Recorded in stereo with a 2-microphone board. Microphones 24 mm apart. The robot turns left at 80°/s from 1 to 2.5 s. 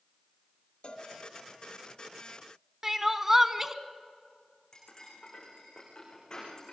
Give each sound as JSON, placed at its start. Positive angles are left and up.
{"t": 0.8, "sound": "a cowbell", "side_deg": 45, "distance_m": 1.8}
{"t": 2.8, "sound": "crying", "side_deg": -20, "distance_m": 1.1}
{"t": 4.7, "sound": "cutlery clinking", "side_deg": 30, "distance_m": 9.0}